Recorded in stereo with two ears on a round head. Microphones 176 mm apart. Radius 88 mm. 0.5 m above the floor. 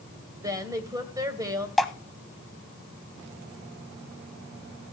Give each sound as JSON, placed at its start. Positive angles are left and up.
{"t": 0.4, "sound": "a woman speaking", "side_deg": -15, "distance_m": 2.0}
{"t": 1.8, "sound": "dripping", "side_deg": 0, "distance_m": 1.0}